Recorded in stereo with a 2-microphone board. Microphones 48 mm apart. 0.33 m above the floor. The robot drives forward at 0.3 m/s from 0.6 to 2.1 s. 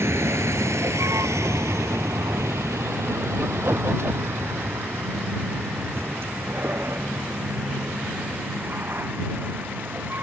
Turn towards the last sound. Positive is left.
turn(degrees=-45)  # may be behind; listen again after turning